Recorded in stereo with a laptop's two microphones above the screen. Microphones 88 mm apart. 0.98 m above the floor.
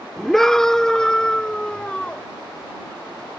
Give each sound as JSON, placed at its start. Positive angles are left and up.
{"t": 0.2, "sound": "a scream", "side_deg": 5}